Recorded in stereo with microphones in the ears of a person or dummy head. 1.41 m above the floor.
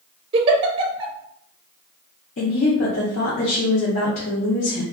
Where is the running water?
No running water in this recording.